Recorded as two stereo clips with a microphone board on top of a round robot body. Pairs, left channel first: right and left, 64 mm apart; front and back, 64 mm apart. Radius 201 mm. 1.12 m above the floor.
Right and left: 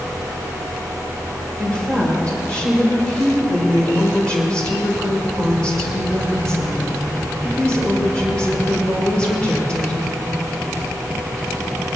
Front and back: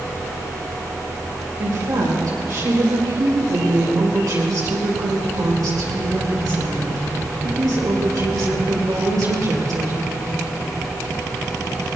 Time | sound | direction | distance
1.6 | a woman speaking | 165° right | 6 m